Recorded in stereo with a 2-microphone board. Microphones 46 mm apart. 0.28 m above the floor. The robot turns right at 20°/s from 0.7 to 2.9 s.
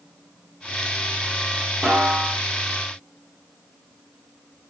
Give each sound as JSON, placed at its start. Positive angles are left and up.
{"t": 1.8, "sound": "a snare drum", "side_deg": -15, "distance_m": 1.1}